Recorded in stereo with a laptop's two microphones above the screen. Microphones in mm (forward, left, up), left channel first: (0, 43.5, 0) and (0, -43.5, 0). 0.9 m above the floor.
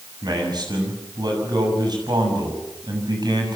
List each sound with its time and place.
0.2 s a man speaking: 55° right (ahead or behind), 7 m